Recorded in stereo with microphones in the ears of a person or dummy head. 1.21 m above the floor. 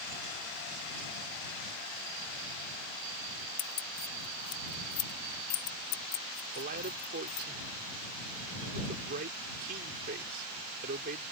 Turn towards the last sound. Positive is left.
turn(degrees=-55)  # may be behind; listen again after turning